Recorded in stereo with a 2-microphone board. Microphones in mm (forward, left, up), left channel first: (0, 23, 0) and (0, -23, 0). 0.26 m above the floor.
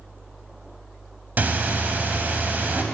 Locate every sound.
1.4 s breathing: 40° right (ahead or behind), 0.8 m